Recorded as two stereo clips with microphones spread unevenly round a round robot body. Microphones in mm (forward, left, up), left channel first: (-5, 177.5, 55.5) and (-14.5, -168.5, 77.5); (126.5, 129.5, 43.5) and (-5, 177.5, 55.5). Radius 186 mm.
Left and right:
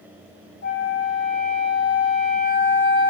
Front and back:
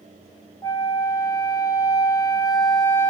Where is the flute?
35° left, 1.0 m.